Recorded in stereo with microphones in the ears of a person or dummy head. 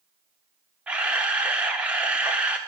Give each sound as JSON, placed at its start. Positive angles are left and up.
{"t": 0.9, "sound": "a camera shutter", "side_deg": -5, "distance_m": 0.7}